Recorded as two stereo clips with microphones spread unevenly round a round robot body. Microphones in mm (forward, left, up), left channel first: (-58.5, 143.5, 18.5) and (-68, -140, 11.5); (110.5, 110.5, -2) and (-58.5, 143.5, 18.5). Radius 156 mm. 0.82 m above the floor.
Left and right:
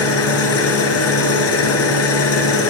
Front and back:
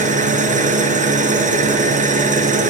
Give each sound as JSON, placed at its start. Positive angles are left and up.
{"t": 0.0, "sound": "an engine running", "azimuth_deg": 125, "distance_m": 3.5}